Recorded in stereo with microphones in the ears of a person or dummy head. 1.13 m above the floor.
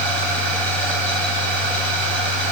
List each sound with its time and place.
0.0 s a machine running: 5° left (ahead or behind), 9.5 m